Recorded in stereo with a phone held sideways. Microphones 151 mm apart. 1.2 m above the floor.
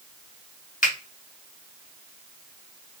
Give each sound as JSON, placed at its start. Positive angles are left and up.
{"t": 0.8, "sound": "a finger snap", "side_deg": 70, "distance_m": 1.5}